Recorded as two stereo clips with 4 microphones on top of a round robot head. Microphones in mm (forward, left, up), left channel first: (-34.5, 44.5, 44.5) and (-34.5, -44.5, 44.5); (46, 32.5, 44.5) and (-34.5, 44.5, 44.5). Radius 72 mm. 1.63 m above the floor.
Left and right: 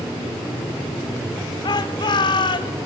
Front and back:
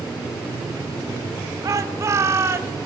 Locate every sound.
1.6 s a shout: 125° left, 2.5 m; by 2.8 s 120° left, 3 m